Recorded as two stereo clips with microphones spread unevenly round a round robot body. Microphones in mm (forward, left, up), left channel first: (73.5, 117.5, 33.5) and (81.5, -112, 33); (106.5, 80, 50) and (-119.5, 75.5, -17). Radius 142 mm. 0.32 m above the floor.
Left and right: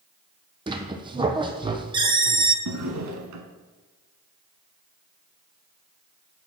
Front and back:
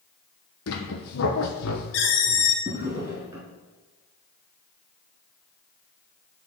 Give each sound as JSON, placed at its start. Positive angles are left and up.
{"t": 0.7, "sound": "a squeak", "azimuth_deg": -20, "distance_m": 0.8}
{"t": 2.6, "sound": "a drawer", "azimuth_deg": -100, "distance_m": 0.9}